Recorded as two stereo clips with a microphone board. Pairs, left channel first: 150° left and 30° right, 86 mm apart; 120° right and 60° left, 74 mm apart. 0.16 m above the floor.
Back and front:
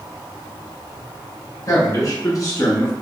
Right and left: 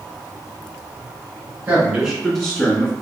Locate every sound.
1.7 s a man speaking: 120° left, 1.4 m; by 2.9 s 175° right, 1.5 m